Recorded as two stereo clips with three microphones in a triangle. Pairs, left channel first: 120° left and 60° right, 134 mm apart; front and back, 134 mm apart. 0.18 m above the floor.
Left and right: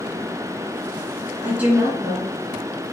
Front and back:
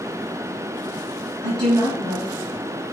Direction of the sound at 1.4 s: 135° right.